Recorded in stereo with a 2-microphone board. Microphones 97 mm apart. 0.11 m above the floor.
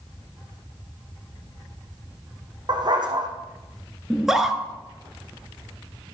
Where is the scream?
5° right (ahead or behind), 1.5 m.